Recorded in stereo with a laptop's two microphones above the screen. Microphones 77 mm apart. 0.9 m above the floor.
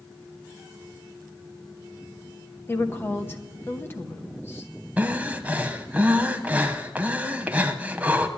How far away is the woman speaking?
About 1.0 m.